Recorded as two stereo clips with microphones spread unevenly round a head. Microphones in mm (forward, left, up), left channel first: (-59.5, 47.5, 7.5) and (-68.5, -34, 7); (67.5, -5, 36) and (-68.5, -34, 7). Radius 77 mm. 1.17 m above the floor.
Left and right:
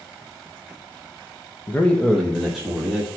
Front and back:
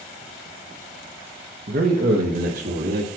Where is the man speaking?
150° left, 0.9 m; by 3.1 s 175° right, 2 m.